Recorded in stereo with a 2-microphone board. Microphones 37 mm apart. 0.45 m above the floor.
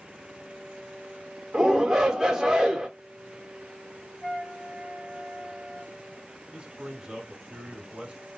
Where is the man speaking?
20° right (ahead or behind), 1.0 m.